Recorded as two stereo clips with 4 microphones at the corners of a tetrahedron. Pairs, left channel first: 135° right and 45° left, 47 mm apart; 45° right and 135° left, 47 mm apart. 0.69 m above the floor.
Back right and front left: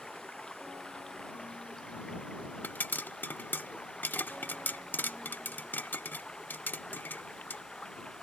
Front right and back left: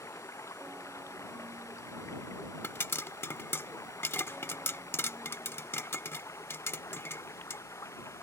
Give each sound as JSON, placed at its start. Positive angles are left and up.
{"t": 0.0, "sound": "running water", "azimuth_deg": -60}
{"t": 2.6, "sound": "a pop", "azimuth_deg": -85}